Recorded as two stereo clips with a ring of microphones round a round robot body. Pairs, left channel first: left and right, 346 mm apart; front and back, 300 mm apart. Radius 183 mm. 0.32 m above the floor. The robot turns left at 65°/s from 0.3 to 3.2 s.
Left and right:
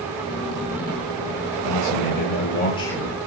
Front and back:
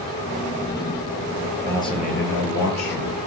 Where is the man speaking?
90° left, 9 m; by 3.1 s 10° right, 9 m.